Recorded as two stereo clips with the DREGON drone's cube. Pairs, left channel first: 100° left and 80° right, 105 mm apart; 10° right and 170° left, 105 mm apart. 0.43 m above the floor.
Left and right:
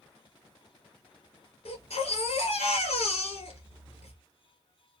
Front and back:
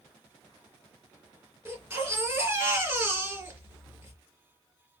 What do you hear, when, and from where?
1.6 s a baby crying: 100° left, 2.5 m